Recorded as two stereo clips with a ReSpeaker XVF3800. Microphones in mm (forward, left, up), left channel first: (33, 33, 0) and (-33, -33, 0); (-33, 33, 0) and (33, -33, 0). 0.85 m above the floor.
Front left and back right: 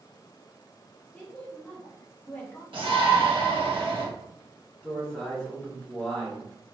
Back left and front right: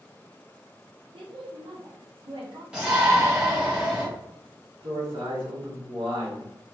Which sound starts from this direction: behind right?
A shout, at 2.7 s.